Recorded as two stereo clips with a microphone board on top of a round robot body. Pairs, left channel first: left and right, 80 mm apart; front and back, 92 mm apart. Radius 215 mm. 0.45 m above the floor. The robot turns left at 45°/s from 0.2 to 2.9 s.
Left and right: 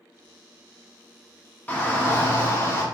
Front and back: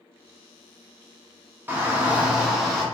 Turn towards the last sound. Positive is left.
turn(degrees=85)